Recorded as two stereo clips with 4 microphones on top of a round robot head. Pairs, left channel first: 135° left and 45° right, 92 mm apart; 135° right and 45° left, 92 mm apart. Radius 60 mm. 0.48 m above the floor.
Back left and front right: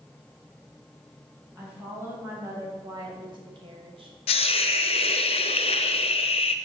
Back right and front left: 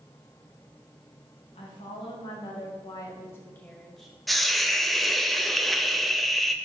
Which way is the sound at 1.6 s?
120° right.